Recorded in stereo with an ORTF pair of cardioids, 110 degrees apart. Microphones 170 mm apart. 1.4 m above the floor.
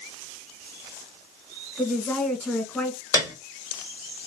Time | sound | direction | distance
1.8 | a woman speaking | 10° left | 1.5 m
3.1 | a piano | 20° left | 1.4 m